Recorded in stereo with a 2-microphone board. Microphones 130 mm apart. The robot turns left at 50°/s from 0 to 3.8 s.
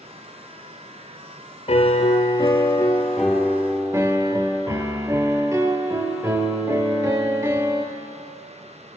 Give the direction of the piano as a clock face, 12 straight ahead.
9 o'clock.